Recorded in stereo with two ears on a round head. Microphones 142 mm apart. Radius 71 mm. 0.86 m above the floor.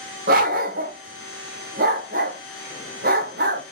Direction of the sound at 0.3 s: 55° right (ahead or behind).